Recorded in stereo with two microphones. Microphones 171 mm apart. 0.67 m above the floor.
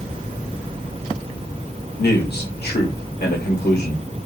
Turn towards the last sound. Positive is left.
turn(degrees=70)  # may be behind; listen again after turning